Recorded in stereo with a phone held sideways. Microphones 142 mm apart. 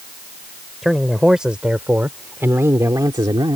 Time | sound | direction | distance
0.8 | a man speaking | centre (ahead or behind) | ?